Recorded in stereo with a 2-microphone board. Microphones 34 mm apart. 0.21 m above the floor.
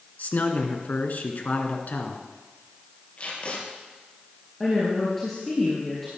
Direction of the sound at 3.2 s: 45° left (ahead or behind).